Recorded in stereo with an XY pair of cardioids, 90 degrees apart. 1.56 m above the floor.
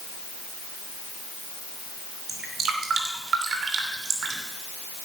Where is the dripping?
65° right, 3 m.